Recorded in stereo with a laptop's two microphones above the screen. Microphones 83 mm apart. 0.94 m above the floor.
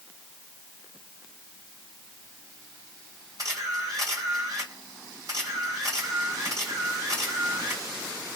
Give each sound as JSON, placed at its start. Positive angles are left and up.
{"t": 3.4, "sound": "a camera shutter", "side_deg": -50, "distance_m": 2.0}